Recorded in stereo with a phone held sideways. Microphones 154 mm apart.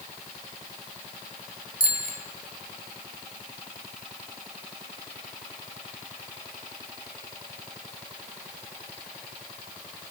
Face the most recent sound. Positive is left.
turn(degrees=65)  # may be behind; listen again after turning